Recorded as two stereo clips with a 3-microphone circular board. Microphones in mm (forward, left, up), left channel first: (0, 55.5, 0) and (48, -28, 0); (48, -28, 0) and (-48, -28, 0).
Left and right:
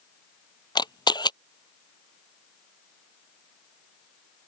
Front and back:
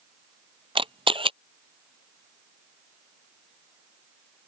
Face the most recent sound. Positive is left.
turn(degrees=160)